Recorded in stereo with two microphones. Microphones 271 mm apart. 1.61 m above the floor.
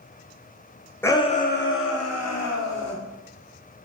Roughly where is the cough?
I don't hear a cough.